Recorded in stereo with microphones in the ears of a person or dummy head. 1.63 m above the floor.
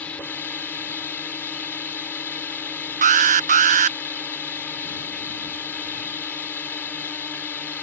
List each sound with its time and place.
0.0 s a drone: 10° left (ahead or behind)
3.0 s an alarm: 35° right (ahead or behind)